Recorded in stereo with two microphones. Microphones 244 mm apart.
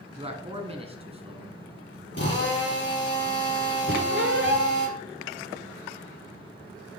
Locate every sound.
0.2 s a man speaking: 25° right (ahead or behind), 1.3 m
2.1 s a drill: 50° left (ahead or behind), 3 m
3.9 s a squeak: 55° right (ahead or behind), 1.1 m